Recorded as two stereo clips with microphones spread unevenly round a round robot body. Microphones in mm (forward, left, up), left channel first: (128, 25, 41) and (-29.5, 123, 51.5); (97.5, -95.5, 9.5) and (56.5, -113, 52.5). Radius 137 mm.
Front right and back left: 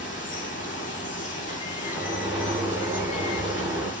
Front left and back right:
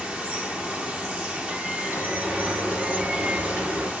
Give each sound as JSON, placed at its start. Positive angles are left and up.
{"t": 0.0, "sound": "running water", "azimuth_deg": -85, "distance_m": 2.5}
{"t": 1.8, "sound": "a sliding door", "azimuth_deg": -130, "distance_m": 5.5}